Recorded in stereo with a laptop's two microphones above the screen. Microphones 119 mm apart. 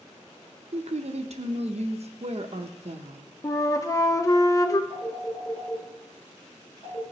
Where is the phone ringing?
30° left (ahead or behind), 3 m.